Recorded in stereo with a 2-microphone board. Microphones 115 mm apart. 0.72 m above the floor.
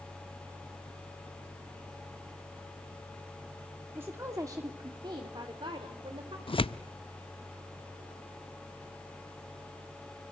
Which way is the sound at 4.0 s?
20° right (ahead or behind).